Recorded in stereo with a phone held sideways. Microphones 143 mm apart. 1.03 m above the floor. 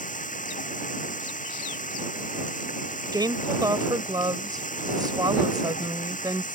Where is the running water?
65° left (ahead or behind).